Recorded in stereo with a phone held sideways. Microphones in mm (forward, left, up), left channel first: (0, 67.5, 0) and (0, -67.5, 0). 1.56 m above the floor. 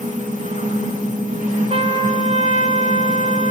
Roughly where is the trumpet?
Right.